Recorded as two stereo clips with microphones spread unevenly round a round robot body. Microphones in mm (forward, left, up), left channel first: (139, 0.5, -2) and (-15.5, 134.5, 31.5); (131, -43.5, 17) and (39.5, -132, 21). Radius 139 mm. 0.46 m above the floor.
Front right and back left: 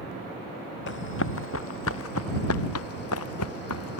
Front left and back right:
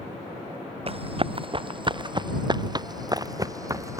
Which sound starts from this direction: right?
Running footsteps, at 0.9 s.